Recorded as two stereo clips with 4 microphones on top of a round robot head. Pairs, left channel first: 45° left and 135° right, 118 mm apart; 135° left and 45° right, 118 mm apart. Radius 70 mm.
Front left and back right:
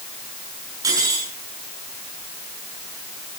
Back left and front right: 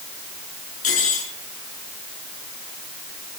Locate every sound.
0.8 s cutlery clinking: 160° left, 8 m